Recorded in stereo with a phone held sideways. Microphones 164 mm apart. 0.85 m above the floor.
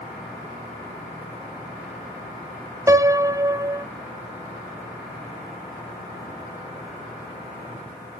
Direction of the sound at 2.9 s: 20° right (ahead or behind).